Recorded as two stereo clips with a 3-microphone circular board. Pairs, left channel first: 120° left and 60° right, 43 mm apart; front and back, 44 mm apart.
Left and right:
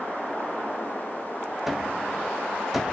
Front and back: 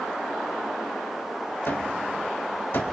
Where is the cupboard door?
20° left, 2 m.